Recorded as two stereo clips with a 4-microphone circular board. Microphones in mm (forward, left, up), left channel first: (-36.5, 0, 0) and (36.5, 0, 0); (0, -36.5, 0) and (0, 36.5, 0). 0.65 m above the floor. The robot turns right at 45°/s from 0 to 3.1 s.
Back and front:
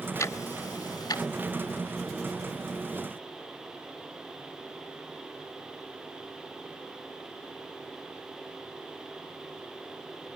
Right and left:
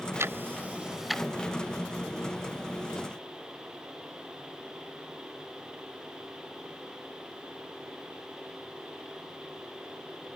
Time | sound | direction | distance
0.2 | ticking | 135° left | ?